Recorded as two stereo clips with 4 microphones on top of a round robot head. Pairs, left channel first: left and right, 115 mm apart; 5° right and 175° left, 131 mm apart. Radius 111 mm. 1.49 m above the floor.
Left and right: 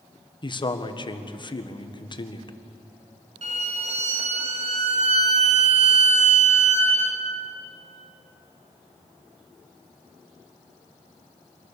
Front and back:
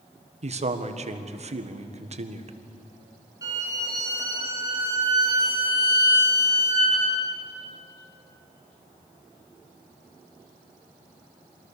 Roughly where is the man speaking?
Behind left.